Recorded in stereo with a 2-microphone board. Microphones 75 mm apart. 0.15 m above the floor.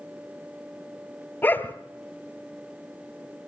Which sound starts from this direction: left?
A dog barking, at 1.4 s.